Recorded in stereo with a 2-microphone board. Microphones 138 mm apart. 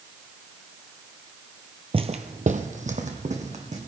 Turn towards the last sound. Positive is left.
turn(degrees=-50)  # may be behind; listen again after turning